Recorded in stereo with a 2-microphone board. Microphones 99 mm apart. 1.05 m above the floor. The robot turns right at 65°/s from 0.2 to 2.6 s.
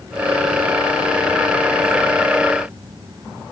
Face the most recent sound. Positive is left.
No sound to turn to.